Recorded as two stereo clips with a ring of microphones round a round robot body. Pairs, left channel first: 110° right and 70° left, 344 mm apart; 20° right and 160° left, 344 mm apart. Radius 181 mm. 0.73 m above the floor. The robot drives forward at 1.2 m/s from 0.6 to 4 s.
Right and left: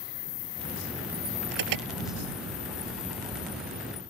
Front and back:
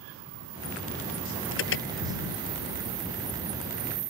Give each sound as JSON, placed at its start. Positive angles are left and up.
{"t": 1.5, "sound": "an alarm", "azimuth_deg": 35}